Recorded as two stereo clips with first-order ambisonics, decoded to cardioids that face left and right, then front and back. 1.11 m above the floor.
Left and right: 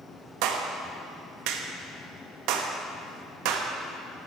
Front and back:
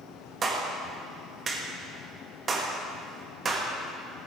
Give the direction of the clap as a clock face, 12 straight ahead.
4 o'clock.